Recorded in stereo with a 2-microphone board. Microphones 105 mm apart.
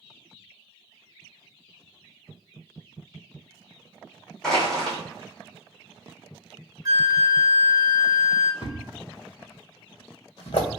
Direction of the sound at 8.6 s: 45° left (ahead or behind).